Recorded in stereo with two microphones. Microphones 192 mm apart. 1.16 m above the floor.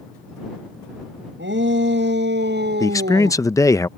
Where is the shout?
80° right; by 3.4 s 60° right (ahead or behind).